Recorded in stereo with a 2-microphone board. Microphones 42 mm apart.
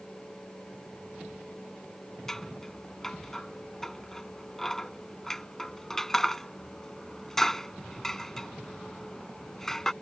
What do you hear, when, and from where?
2.3 s scissors: 10° left (ahead or behind)